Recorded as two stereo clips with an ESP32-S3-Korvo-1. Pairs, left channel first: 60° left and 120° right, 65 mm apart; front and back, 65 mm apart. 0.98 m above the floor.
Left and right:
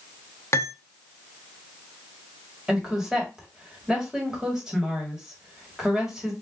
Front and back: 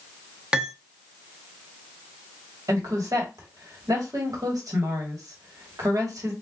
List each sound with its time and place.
0.5 s cutlery clinking: 105° left, 0.7 m
2.7 s a woman speaking: 160° left, 1.7 m